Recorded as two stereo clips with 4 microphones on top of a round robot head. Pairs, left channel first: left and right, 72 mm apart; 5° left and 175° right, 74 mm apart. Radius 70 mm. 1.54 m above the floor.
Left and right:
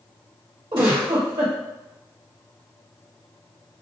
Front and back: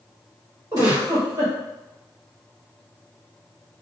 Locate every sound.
0.7 s a giggle: 120° right, 1.7 m